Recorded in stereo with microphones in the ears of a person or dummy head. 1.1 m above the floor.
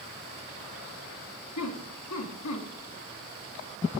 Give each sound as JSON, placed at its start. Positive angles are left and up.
{"t": 1.6, "sound": "laughter", "side_deg": 85, "distance_m": 1.6}